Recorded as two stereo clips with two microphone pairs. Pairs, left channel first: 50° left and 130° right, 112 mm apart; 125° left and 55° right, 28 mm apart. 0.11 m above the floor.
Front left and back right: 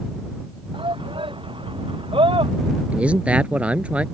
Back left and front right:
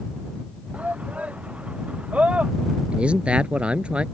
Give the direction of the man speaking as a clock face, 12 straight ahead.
2 o'clock.